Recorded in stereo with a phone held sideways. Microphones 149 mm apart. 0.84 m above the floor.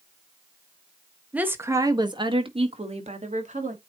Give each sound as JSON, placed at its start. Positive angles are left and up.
{"t": 1.3, "sound": "a woman speaking", "side_deg": -10, "distance_m": 1.2}